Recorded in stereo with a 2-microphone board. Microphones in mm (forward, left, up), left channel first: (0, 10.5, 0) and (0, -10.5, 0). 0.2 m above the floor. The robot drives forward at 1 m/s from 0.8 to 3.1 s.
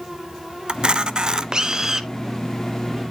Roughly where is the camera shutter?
Right.